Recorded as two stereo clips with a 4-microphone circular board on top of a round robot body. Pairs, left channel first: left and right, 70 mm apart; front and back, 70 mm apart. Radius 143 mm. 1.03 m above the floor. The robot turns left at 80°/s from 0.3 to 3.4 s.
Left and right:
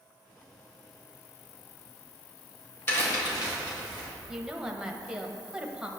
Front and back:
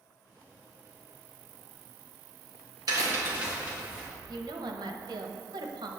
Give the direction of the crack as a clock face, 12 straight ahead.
7 o'clock.